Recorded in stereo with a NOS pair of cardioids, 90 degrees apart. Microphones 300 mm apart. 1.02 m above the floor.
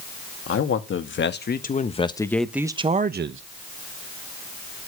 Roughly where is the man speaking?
Ahead left.